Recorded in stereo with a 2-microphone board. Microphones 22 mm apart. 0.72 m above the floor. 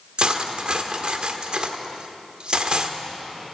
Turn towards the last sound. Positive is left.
turn(degrees=-45)  # may be behind; listen again after turning